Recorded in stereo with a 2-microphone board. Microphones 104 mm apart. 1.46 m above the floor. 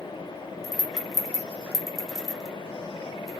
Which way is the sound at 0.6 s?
Centre (ahead or behind).